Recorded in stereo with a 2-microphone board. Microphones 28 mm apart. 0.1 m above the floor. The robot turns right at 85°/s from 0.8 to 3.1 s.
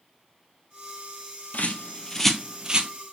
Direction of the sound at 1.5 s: 60° left (ahead or behind).